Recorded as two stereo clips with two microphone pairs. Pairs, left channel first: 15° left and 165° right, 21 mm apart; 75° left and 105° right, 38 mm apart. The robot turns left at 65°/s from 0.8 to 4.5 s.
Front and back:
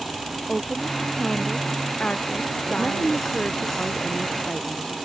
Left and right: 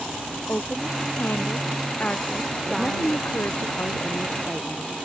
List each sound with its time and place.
0.5 s a woman speaking: 115° left; by 3.7 s 75° right
2.7 s a woman speaking: 145° left; by 5.0 s 25° left